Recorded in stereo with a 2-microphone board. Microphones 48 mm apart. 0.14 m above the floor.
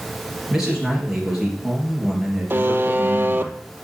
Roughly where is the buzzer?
Right.